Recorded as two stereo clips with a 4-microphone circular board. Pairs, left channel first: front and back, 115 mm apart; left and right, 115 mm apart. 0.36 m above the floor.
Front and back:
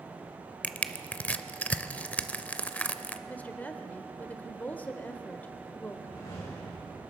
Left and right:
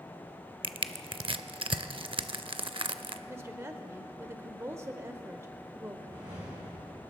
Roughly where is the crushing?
Right.